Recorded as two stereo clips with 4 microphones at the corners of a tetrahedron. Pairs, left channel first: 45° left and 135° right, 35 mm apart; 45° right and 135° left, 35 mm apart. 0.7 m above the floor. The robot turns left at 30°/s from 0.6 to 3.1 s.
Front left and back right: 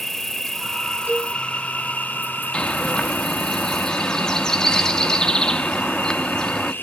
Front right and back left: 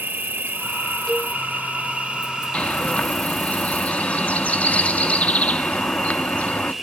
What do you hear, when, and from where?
0.0 s an insect: 125° left, 0.9 m; by 6.8 s 50° left, 0.9 m
1.1 s a cowbell: 125° right, 2.5 m; by 1.4 s 135° right, 2.5 m
2.5 s a bird: 5° right, 0.7 m; by 6.7 s 20° right, 0.7 m